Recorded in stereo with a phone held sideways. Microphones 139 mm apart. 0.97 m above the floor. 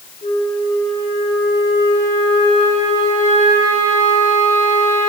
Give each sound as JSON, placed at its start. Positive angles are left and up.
{"t": 0.2, "sound": "a flute", "side_deg": 70, "distance_m": 3.0}